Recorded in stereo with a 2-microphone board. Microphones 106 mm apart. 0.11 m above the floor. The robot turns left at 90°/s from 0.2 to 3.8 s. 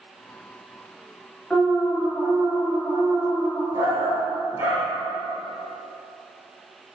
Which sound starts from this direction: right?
A shout, at 3.7 s.